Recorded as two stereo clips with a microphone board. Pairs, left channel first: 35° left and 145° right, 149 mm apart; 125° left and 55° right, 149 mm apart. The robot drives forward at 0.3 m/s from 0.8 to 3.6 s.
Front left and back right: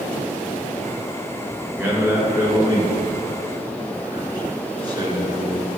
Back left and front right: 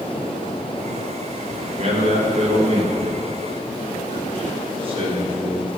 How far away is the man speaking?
About 2.0 m.